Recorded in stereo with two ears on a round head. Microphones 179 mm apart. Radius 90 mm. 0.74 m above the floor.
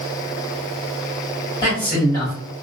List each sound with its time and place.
1.6 s a man speaking: 15° left (ahead or behind), 1.5 m